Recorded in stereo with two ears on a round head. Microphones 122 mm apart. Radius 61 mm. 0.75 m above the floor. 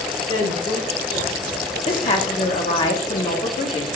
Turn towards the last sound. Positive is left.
turn(degrees=40)  # may be behind; listen again after turning